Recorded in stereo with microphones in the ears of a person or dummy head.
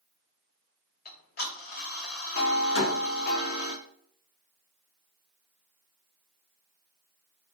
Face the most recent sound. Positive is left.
turn(degrees=80)